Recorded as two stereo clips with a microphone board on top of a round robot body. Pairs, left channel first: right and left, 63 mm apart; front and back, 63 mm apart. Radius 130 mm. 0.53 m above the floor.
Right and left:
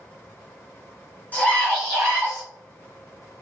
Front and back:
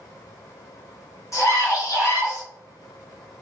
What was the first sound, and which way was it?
A scream, 25° right.